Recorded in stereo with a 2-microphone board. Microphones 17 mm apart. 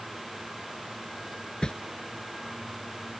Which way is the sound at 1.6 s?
60° left (ahead or behind).